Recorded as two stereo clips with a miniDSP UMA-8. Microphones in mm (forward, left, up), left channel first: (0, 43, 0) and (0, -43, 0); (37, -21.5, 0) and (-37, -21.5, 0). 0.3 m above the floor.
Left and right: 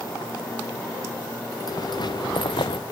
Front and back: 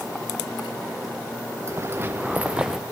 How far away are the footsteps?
About 1.9 m.